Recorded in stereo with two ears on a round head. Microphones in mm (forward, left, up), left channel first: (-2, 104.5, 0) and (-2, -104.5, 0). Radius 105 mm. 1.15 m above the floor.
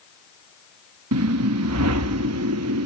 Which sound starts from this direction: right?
A whoosh, at 1.1 s.